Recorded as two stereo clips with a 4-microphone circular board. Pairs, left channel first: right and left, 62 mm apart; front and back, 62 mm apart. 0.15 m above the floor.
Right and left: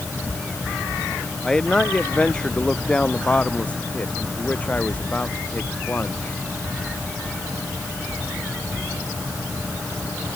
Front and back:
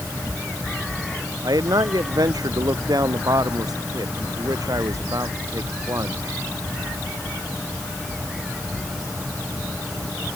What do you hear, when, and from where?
1.4 s a man speaking: 170° right; by 6.3 s 150° right